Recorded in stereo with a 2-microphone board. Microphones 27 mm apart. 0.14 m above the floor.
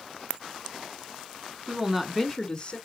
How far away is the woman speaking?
About 1.5 m.